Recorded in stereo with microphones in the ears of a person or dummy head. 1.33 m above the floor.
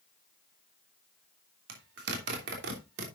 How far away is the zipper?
About 2.5 m.